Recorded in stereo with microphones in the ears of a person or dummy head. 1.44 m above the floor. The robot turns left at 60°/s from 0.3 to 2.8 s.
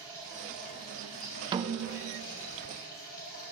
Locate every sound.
0.0 s running water: 160° right, 7 m; by 3.5 s 50° left, 7 m
1.5 s a snare drum: 30° right, 0.6 m; by 2.3 s 75° right, 0.6 m